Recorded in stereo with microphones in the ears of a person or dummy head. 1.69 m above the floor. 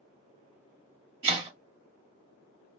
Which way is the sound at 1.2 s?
35° right (ahead or behind).